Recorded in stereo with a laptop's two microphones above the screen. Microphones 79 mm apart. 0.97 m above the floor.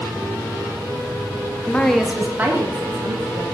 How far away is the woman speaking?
About 0.8 m.